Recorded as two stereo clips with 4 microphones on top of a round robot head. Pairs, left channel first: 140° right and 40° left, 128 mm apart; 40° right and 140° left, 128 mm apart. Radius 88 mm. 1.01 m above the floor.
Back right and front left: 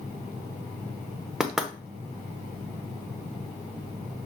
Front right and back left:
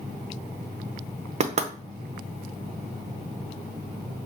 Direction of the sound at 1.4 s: 130° left.